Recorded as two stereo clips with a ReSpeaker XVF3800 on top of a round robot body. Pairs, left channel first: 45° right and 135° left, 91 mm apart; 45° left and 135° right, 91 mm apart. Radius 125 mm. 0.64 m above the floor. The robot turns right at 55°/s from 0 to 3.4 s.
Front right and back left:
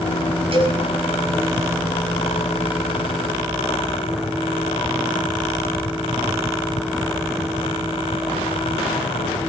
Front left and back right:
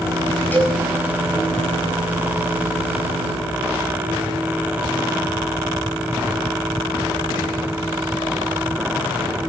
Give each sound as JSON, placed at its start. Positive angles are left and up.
{"t": 0.5, "sound": "a cowbell", "azimuth_deg": 115, "distance_m": 7.0}